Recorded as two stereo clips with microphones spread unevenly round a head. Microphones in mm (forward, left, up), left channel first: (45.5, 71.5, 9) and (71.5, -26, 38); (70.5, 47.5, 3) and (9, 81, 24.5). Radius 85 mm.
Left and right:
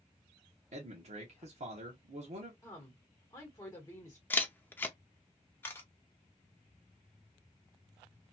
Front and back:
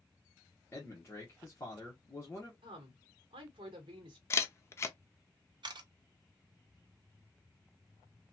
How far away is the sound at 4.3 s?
About 0.5 m.